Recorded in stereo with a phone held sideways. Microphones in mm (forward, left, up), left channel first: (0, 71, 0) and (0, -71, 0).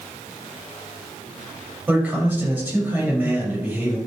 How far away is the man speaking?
About 7 m.